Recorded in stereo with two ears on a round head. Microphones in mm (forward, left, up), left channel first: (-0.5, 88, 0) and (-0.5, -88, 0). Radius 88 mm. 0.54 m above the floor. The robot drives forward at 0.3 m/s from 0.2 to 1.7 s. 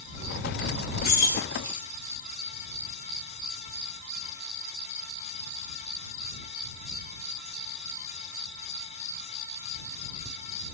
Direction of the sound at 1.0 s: 55° left (ahead or behind).